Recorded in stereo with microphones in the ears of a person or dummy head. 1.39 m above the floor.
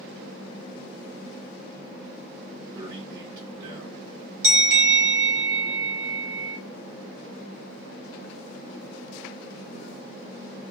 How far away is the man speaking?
About 1.7 m.